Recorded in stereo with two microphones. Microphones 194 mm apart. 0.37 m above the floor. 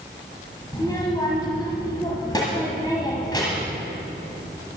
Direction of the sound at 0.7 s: 20° left (ahead or behind).